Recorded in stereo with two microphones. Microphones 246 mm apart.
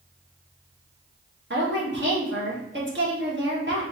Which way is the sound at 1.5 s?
50° right (ahead or behind).